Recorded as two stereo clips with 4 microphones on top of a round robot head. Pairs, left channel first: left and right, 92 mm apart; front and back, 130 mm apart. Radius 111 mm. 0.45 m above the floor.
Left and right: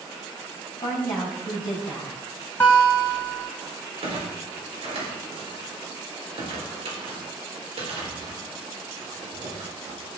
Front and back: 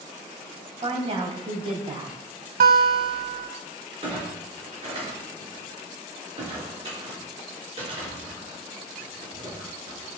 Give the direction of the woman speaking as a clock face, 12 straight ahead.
7 o'clock.